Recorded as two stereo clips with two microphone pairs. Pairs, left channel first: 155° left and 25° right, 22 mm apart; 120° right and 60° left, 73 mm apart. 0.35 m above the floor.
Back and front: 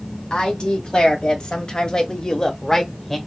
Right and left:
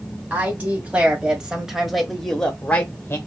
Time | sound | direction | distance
0.3 | a woman speaking | 125° left | 2.0 m